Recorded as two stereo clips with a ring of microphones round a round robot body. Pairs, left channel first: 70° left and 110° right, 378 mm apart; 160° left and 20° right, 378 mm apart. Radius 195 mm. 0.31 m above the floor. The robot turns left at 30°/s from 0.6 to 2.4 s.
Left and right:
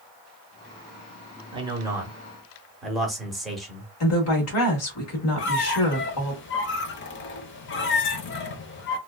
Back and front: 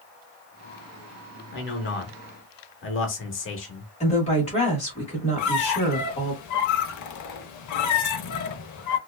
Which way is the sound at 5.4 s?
120° left.